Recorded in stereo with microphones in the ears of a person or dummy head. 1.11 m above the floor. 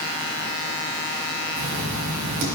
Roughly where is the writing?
Right.